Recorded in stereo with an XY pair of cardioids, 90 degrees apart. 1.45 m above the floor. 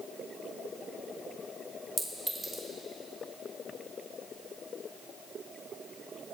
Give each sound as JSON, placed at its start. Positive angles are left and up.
{"t": 2.0, "sound": "a clink", "azimuth_deg": -20, "distance_m": 2.0}